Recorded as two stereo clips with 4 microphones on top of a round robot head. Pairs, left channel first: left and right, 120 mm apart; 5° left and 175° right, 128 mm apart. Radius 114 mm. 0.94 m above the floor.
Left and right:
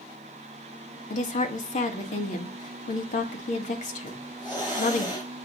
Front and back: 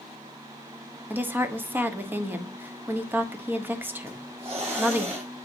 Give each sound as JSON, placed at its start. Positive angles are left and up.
{"t": 1.1, "sound": "a woman speaking", "azimuth_deg": 110, "distance_m": 1.5}
{"t": 4.1, "sound": "a hiss", "azimuth_deg": 150, "distance_m": 5.0}